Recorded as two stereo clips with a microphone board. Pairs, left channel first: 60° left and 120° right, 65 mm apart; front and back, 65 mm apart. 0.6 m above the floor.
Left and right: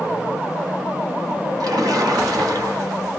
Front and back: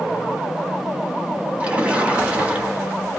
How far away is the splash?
About 0.9 m.